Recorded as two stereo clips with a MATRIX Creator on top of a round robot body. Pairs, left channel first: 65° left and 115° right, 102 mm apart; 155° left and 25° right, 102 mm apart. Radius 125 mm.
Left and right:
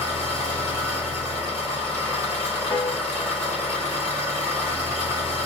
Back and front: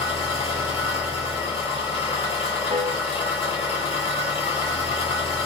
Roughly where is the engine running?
Behind.